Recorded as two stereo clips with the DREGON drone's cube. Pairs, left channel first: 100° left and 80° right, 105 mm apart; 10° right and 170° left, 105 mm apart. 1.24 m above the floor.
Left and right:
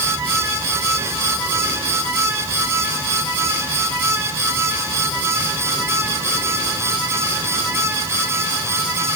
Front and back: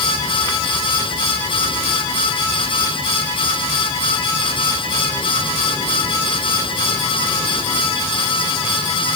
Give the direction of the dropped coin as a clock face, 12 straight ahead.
I don't hear a dropped coin.